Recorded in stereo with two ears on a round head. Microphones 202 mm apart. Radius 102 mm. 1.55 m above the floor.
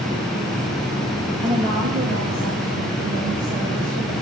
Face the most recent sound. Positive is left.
turn(degrees=-85)